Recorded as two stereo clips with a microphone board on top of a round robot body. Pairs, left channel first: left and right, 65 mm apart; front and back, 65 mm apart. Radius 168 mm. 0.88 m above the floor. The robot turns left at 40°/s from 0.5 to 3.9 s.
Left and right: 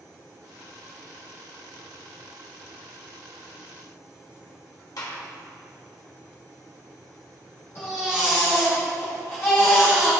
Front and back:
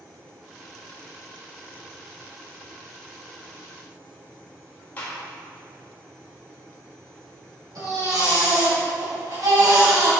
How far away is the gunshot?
About 1.6 m.